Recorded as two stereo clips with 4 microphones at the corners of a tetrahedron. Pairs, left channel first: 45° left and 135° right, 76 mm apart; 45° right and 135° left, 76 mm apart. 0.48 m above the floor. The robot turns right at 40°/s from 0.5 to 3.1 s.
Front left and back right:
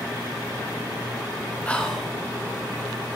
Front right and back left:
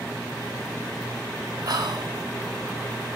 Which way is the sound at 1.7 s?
115° left.